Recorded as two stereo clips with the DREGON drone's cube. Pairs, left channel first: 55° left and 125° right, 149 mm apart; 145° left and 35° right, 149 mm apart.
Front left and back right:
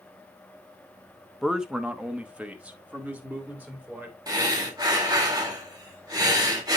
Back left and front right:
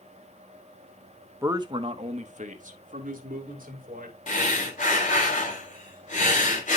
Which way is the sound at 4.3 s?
175° left.